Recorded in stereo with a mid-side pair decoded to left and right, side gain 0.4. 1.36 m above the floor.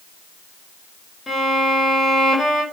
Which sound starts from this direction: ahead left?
A violin, at 1.3 s.